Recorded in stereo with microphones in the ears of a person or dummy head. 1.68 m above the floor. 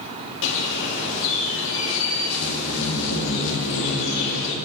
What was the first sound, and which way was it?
A bird, 65° left (ahead or behind).